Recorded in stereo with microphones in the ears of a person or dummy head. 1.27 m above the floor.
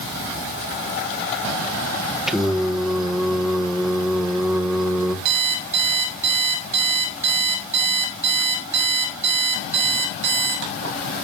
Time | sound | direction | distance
2.3 | singing | centre (ahead or behind) | 1.4 m
5.2 | an alarm clock | 65° right (ahead or behind) | 4.5 m